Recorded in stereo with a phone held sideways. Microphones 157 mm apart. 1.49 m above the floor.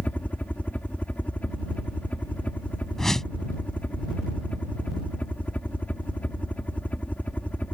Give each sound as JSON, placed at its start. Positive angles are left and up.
{"t": 0.0, "sound": "a helicopter", "side_deg": 10}
{"t": 3.0, "sound": "a whoosh", "side_deg": 0}